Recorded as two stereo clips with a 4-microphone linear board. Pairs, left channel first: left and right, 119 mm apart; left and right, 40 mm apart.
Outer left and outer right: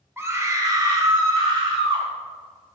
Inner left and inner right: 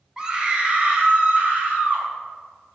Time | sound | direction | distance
0.2 | a scream | 20° right (ahead or behind) | 1.7 m